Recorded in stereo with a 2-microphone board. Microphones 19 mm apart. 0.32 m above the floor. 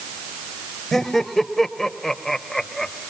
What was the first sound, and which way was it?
Laughter, 15° left (ahead or behind).